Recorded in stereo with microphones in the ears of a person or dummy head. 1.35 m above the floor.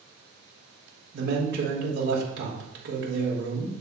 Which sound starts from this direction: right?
A man speaking, at 1.1 s.